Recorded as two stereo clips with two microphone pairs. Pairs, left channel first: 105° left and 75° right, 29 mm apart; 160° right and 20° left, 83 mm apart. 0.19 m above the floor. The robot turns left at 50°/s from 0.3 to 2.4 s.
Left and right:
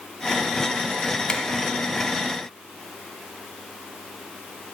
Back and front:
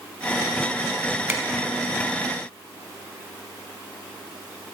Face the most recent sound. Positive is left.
turn(degrees=20)